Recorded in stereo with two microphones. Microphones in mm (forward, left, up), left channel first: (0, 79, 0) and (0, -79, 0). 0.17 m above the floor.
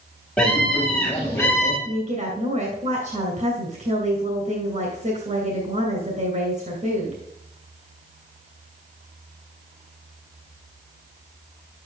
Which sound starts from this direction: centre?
A scream, at 0.4 s.